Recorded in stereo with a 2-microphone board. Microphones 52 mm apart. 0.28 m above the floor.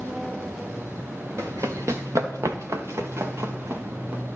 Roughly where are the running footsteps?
Right.